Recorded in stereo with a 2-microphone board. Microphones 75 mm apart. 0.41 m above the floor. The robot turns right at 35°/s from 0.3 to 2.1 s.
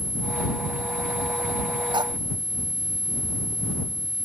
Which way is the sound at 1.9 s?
80° right.